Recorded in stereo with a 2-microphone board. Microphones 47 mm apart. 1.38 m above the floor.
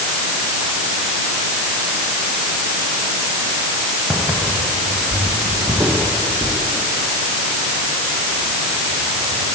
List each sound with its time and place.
4.1 s footsteps: 45° right (ahead or behind), 5 m; by 9.6 s 75° right (ahead or behind), 6.5 m